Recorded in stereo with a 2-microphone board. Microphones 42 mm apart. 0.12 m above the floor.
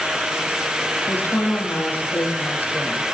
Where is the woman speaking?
55° left (ahead or behind), 5 m.